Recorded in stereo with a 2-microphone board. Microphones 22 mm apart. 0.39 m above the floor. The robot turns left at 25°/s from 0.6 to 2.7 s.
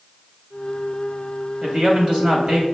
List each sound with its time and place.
1.6 s a man speaking: 60° right (ahead or behind), 2.5 m; by 2.6 s 55° right (ahead or behind), 2.5 m